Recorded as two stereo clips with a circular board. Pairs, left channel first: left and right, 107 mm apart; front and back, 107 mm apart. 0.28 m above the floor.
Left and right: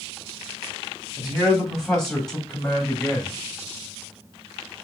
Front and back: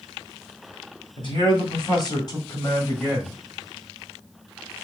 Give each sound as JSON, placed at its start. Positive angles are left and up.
{"t": 1.2, "sound": "a man speaking", "azimuth_deg": 0, "distance_m": 2.5}